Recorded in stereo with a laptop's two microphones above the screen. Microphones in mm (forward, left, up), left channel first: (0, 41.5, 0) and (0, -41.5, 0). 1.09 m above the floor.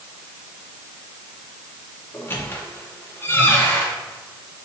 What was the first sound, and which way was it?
A squeak, 25° left (ahead or behind).